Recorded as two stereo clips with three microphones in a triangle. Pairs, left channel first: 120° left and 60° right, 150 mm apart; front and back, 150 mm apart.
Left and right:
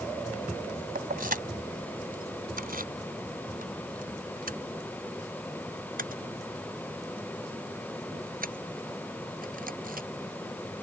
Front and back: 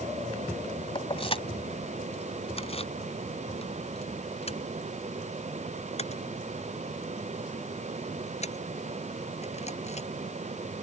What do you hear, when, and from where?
0.9 s keys jangling: 50° right; by 10.1 s 40° right